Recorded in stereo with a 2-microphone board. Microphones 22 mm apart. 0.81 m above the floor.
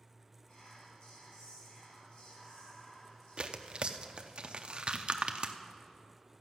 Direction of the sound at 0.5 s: 55° left (ahead or behind).